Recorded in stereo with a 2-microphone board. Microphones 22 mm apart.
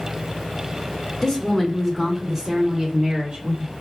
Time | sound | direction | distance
1.2 | a woman speaking | 25° left (ahead or behind) | 1.0 m